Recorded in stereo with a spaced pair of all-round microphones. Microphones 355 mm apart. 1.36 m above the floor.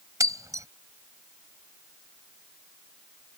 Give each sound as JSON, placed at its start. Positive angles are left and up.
{"t": 0.2, "sound": "breaking glass", "side_deg": -10}